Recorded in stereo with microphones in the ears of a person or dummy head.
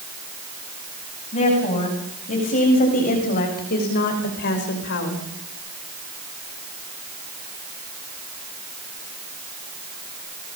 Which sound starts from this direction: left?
A woman speaking, at 1.3 s.